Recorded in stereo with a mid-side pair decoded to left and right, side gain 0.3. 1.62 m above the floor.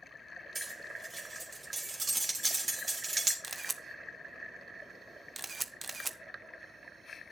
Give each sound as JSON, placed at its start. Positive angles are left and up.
{"t": 0.6, "sound": "cutlery clinking", "azimuth_deg": -40, "distance_m": 3.0}
{"t": 3.4, "sound": "a camera shutter", "azimuth_deg": -40, "distance_m": 1.2}